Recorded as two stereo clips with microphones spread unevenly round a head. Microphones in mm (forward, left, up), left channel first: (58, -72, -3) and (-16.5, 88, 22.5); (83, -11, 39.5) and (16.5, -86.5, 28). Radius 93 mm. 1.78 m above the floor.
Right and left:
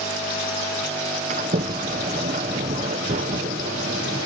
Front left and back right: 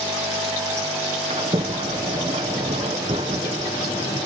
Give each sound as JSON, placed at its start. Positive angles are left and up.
{"t": 1.3, "sound": "a sliding door", "azimuth_deg": 170}